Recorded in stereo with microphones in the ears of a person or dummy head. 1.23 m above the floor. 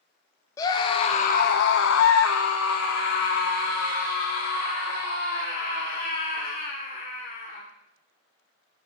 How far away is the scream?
About 0.9 m.